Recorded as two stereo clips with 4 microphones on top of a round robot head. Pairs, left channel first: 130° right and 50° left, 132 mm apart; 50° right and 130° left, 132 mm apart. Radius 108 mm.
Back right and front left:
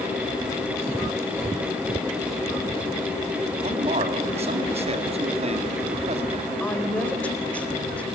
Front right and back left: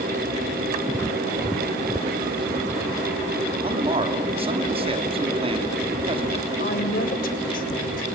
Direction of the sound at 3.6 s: 85° left.